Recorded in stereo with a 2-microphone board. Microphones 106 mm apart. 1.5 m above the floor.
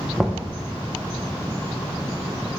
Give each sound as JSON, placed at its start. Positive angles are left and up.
{"t": 0.2, "sound": "knocking", "side_deg": -5, "distance_m": 0.6}